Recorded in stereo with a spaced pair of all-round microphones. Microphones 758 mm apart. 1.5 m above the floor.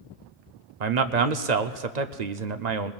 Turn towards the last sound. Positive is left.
turn(degrees=-65)  # may be behind; listen again after turning